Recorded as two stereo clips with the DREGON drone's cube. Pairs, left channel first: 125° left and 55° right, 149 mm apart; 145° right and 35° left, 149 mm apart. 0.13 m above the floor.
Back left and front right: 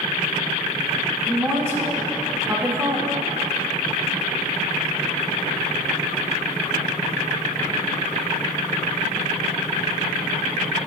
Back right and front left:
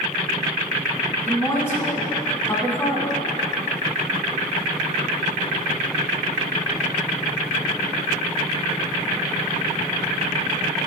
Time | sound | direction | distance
1.3 | a woman speaking | 100° right | 1.1 m